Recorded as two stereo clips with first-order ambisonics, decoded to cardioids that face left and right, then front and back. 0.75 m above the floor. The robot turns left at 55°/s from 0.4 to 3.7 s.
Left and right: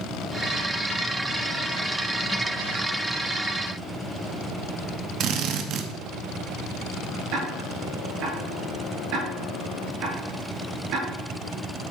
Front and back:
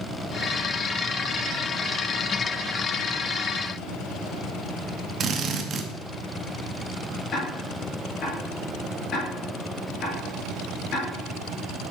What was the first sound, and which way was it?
A drill, 125° right.